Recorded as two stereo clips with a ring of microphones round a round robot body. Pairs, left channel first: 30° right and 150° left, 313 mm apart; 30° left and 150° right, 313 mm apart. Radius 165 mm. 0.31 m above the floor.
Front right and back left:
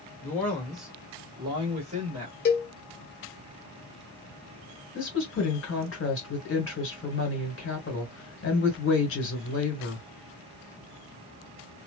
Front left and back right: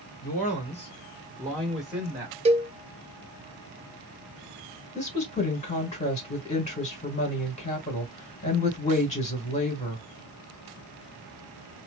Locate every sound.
0.2 s a man speaking: 45° left, 1.6 m; by 2.4 s 145° left, 1.6 m
2.5 s a cowbell: 85° right, 0.5 m
5.0 s a woman speaking: 25° right, 1.6 m